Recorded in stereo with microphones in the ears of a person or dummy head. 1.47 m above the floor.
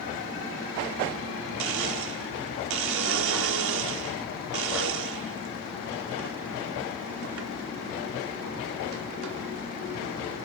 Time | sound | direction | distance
1.6 | a blender | 60° right (ahead or behind) | 0.6 m